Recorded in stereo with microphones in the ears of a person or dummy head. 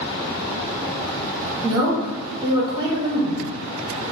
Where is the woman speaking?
20° right (ahead or behind), 1.5 m.